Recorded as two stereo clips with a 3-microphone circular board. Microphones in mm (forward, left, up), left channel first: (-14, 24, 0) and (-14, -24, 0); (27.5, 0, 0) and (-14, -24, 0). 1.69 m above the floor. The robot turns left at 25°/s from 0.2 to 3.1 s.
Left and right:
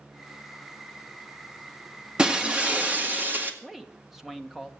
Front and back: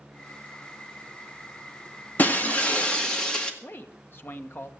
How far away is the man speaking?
About 1.2 m.